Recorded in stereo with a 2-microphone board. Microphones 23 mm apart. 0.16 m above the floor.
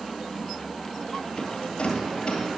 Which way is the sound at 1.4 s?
45° left (ahead or behind).